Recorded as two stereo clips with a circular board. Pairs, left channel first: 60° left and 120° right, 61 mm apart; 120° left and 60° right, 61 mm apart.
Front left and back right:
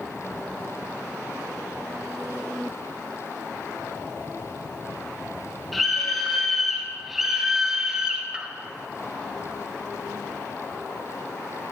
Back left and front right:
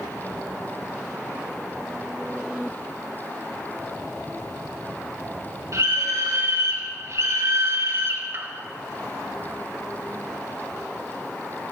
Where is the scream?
30° right, 4.5 m; by 8.5 s 60° right, 1.8 m.